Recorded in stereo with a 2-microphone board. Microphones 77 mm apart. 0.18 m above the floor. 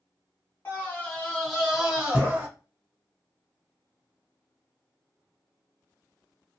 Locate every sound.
0.7 s a scream: 30° left (ahead or behind), 1.6 m; by 2.5 s 20° right (ahead or behind), 1.4 m